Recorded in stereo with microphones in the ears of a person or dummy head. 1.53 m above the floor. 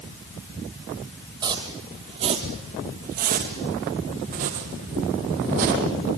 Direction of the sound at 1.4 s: 20° right (ahead or behind).